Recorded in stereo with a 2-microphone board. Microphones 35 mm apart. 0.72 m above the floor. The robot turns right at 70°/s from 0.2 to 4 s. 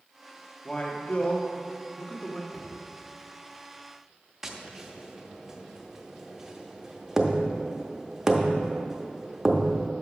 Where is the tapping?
15° right (ahead or behind), 0.7 m.